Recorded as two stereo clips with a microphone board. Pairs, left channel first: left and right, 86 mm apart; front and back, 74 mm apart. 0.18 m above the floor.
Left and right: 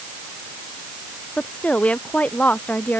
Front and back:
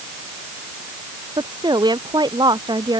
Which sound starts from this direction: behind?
A woman speaking, at 1.4 s.